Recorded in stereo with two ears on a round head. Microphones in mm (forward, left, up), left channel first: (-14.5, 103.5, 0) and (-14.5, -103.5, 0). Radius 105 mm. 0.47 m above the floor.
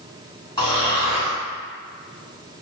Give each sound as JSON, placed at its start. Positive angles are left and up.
{"t": 0.6, "sound": "snoring", "side_deg": 20, "distance_m": 1.9}